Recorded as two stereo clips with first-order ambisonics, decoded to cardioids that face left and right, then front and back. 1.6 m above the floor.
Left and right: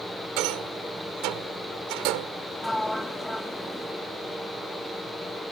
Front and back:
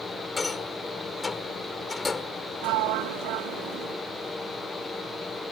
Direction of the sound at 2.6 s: Straight behind.